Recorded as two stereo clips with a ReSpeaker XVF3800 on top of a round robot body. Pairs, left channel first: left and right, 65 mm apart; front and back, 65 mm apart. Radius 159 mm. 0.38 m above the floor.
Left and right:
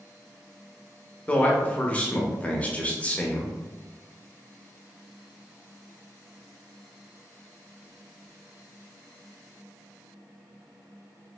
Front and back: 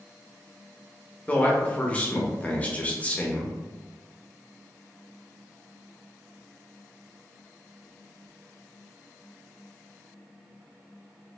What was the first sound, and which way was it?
A man speaking, 45° left.